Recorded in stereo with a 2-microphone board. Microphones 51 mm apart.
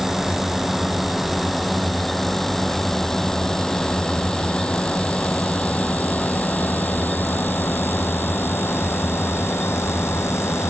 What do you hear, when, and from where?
0.0 s a drone: 10° right (ahead or behind); by 10.7 s 60° left (ahead or behind)